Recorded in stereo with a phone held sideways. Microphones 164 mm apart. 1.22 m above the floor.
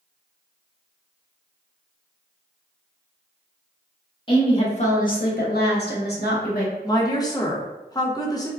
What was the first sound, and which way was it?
A woman speaking, 30° left (ahead or behind).